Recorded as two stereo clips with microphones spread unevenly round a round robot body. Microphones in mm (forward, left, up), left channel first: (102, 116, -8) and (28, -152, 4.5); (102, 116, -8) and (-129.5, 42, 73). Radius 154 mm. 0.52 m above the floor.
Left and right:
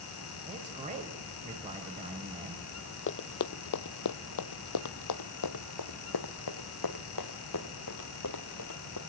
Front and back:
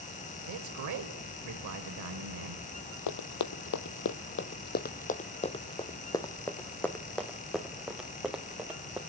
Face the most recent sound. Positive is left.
turn(degrees=115)